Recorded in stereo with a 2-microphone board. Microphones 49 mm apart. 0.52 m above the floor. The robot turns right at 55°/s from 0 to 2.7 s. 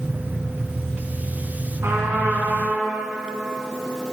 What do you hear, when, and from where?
1.8 s a trumpet: 85° right, 3 m; by 2.9 s 35° right, 3 m